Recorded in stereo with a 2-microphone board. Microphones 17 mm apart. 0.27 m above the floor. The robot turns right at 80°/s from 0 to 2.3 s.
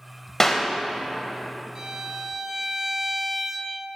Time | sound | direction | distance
0.4 | a clap | 20° left (ahead or behind) | 0.7 m
1.8 | a violin | 70° right | 0.8 m